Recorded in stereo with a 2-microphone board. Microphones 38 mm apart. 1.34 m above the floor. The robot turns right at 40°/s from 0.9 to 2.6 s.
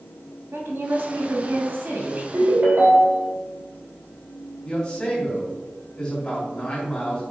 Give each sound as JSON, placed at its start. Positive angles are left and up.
{"t": 0.5, "sound": "a woman speaking", "azimuth_deg": -105, "distance_m": 2.0}
{"t": 2.3, "sound": "a ringtone", "side_deg": -75, "distance_m": 3.0}
{"t": 4.7, "sound": "a man speaking", "side_deg": 20, "distance_m": 3.0}